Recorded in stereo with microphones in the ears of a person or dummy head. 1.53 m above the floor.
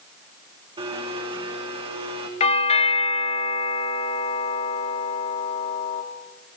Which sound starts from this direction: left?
A doorbell, at 2.4 s.